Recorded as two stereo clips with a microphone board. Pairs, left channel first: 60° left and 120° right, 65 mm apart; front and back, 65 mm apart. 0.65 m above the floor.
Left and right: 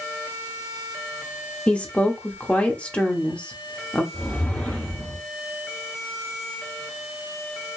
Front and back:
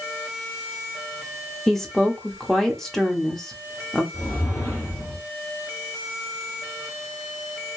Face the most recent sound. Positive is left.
turn(degrees=-15)